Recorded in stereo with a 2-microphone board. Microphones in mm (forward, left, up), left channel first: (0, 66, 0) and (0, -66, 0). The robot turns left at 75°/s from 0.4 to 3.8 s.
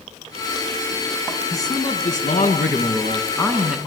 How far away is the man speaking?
About 5.5 m.